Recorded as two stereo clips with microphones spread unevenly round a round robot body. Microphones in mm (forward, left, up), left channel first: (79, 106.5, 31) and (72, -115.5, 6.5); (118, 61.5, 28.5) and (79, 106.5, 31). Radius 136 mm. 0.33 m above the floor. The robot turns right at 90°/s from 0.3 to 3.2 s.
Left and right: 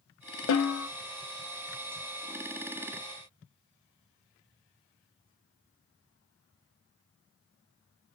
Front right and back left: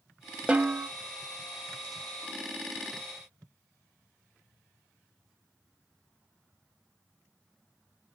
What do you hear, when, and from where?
0.5 s a snare drum: 55° left, 0.6 m; by 0.9 s 90° left, 0.6 m